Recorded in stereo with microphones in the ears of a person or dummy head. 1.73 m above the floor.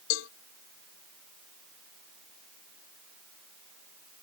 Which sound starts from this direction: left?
A cowbell, at 0.1 s.